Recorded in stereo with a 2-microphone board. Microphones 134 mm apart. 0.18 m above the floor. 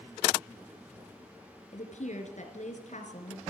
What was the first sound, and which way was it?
A woman speaking, 60° left (ahead or behind).